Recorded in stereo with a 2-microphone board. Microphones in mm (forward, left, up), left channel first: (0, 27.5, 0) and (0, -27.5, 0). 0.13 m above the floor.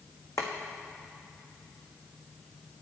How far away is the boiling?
About 1.4 m.